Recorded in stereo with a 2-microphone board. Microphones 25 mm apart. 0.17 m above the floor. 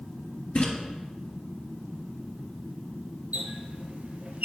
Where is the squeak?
70° right (ahead or behind), 1.0 m.